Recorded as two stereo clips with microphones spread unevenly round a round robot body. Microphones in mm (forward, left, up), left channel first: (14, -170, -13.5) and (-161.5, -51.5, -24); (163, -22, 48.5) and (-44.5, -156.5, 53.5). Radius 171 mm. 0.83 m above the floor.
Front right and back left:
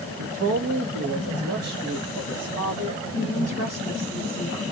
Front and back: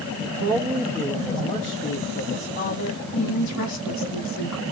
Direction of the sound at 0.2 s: 155° left.